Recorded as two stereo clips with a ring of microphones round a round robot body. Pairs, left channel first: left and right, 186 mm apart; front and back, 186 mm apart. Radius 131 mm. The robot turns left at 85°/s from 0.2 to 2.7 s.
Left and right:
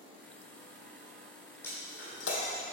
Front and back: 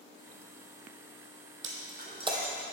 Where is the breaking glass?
170° left, 1.4 m; by 2.6 s 90° left, 1.4 m.